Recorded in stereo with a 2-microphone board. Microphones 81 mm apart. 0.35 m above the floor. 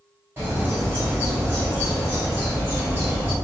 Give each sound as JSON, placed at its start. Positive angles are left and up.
{"t": 0.4, "sound": "a bird", "side_deg": -30, "distance_m": 1.8}